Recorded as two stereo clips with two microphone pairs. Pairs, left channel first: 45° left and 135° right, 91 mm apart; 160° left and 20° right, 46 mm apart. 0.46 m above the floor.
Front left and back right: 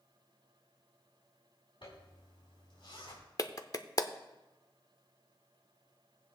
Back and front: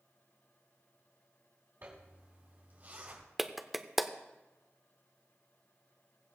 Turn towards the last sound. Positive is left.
turn(degrees=55)